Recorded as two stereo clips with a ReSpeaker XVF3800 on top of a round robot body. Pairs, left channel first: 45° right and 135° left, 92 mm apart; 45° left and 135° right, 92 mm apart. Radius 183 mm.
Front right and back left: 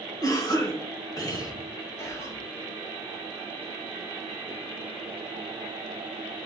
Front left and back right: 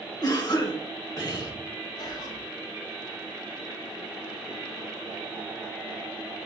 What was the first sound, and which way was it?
A cough, straight ahead.